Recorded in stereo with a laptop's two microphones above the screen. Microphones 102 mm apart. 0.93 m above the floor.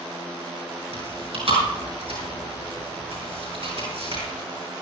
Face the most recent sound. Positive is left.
turn(degrees=-70)  # may be behind; listen again after turning